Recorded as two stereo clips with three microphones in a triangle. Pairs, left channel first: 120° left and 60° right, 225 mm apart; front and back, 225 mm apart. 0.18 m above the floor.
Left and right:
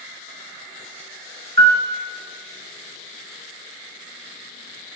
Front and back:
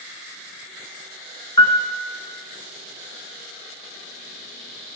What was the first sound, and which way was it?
A piano, 65° right.